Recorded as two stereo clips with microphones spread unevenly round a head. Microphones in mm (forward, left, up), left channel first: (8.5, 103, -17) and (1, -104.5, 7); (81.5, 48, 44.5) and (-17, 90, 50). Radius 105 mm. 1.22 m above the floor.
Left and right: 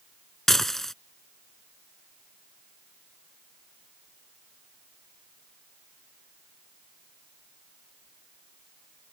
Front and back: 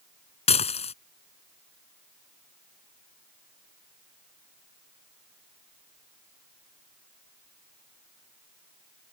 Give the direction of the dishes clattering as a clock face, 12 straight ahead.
12 o'clock.